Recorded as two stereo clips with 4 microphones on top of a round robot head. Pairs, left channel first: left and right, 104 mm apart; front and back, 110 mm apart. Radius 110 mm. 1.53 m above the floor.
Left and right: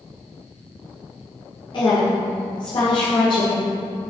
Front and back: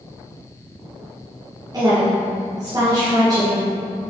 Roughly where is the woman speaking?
Behind left.